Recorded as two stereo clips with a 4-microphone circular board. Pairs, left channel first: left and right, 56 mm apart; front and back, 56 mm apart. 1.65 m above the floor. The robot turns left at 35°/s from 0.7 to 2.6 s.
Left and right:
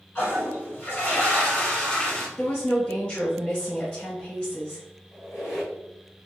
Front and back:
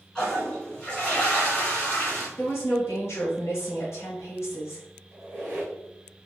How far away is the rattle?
No rattle in this recording.